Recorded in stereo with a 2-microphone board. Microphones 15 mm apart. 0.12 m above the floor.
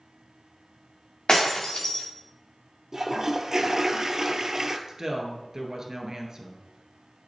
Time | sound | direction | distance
1.3 | breaking glass | 55° left (ahead or behind) | 2.5 m
2.9 | a toilet flushing | 35° right (ahead or behind) | 0.8 m
4.9 | a woman speaking | 40° right (ahead or behind) | 1.6 m